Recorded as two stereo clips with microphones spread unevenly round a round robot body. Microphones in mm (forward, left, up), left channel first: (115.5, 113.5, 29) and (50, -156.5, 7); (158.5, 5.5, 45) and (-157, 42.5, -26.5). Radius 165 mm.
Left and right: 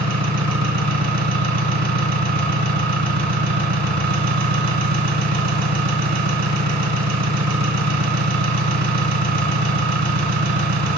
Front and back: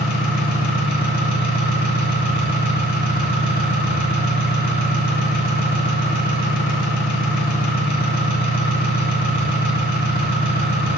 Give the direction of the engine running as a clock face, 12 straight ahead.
3 o'clock.